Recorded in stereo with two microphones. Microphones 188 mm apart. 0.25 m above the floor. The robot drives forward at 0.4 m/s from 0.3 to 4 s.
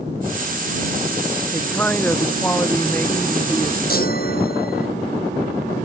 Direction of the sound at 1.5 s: 10° left (ahead or behind).